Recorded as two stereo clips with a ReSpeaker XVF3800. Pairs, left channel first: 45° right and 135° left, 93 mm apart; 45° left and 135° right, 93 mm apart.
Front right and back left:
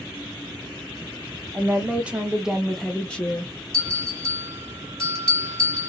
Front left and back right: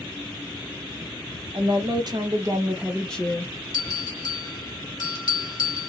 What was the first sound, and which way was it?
A woman speaking, 155° right.